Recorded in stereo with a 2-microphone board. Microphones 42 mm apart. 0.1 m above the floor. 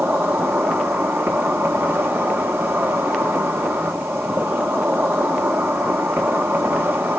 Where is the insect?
70° right (ahead or behind), 1.3 m.